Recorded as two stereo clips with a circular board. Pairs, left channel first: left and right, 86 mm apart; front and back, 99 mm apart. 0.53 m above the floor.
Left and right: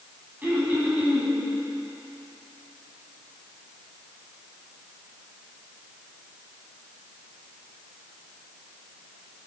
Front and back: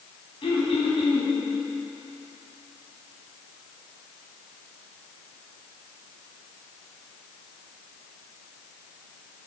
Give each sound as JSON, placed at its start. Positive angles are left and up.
{"t": 0.4, "sound": "throat clearing", "azimuth_deg": -20, "distance_m": 4.5}